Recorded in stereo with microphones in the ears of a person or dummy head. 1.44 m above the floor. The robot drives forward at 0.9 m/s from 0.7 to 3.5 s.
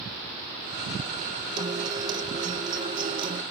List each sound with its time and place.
1.6 s a guitar: 20° right (ahead or behind); by 3.4 s 25° right (ahead or behind)